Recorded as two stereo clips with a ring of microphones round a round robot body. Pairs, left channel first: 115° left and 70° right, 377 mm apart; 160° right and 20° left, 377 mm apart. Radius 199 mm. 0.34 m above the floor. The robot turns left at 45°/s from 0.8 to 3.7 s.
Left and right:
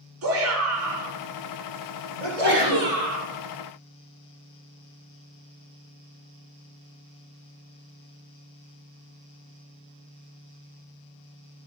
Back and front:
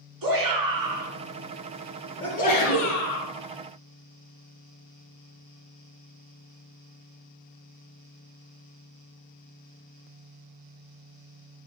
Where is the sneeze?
70° right, 6.5 m; by 2.9 s 105° right, 6.5 m.